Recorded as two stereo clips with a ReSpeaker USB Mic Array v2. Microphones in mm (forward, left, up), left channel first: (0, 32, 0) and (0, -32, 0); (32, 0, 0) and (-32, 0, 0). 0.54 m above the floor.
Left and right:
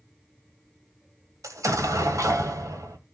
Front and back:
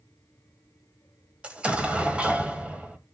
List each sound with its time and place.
1.4 s an explosion: 110° right, 1.4 m